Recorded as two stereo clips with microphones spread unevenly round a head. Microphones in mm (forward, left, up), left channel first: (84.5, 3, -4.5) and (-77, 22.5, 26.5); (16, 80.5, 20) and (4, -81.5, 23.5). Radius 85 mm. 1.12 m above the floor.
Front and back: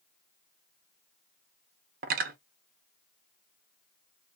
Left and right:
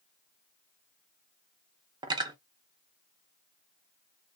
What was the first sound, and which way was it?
Cutlery clinking, 160° right.